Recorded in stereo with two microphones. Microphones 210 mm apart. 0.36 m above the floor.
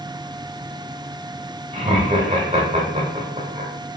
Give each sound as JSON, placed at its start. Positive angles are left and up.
{"t": 1.7, "sound": "laughter", "side_deg": -30, "distance_m": 0.9}